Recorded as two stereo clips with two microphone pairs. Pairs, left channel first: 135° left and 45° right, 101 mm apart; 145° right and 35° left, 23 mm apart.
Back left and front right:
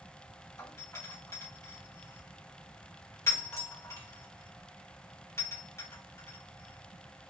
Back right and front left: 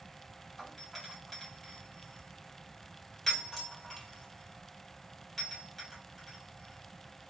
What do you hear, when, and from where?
0.6 s a doorbell: 150° left, 1.6 m